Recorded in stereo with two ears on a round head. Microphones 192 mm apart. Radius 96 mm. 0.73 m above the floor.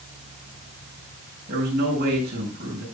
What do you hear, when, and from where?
1.5 s a man speaking: 50° right (ahead or behind), 6 m